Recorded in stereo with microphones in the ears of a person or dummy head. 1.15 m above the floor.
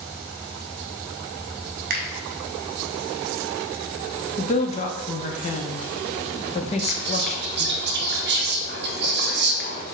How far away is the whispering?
About 0.7 m.